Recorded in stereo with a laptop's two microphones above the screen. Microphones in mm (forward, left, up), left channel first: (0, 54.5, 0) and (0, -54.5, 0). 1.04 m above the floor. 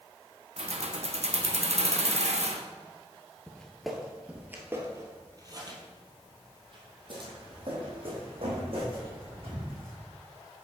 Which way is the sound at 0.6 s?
75° right (ahead or behind).